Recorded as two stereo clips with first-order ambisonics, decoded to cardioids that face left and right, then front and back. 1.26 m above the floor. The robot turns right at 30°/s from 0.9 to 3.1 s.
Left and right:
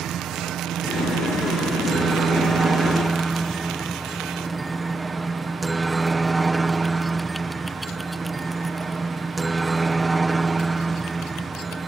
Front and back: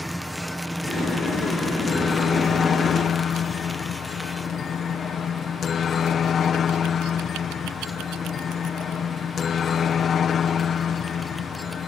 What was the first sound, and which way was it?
A helicopter, 85° right.